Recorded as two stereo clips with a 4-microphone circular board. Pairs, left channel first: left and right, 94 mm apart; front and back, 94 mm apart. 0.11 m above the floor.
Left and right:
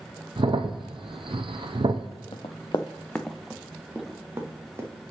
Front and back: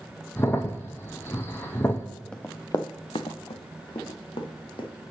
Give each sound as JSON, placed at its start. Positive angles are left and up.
{"t": 0.4, "sound": "a crack", "azimuth_deg": -65, "distance_m": 0.8}
{"t": 2.3, "sound": "running footsteps", "azimuth_deg": 75, "distance_m": 0.6}